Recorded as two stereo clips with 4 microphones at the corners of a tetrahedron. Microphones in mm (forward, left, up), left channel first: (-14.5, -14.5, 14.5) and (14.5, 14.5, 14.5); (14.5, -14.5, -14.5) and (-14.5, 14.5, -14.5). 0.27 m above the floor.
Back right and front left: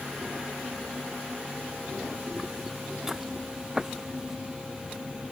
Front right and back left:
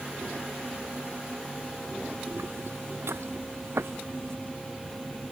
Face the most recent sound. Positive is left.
turn(degrees=125)